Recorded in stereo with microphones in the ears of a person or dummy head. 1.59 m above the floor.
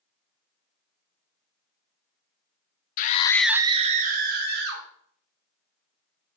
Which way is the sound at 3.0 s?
50° left (ahead or behind).